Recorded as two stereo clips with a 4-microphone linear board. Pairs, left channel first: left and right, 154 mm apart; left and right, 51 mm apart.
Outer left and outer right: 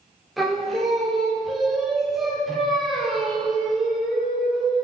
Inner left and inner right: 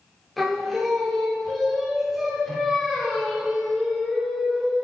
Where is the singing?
Centre (ahead or behind), 2.5 m.